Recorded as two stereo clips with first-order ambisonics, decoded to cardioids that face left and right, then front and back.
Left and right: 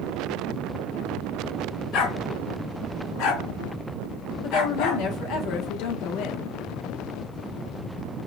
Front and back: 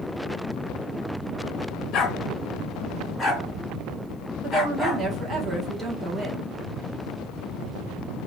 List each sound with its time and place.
1.9 s a dog barking: 60° left, 1.3 m; by 5.0 s 85° left, 2.5 m
4.4 s a woman speaking: 110° left, 1.4 m